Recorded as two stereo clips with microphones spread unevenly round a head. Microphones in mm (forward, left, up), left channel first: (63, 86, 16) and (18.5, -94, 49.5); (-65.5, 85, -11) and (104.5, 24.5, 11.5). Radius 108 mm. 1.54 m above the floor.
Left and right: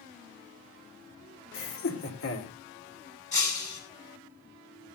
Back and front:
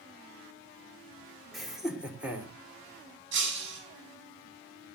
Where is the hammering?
I don't hear hammering.